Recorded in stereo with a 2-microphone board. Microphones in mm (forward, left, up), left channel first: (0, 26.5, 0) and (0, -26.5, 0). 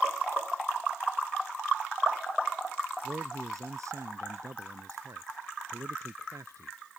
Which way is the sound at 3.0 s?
90° right.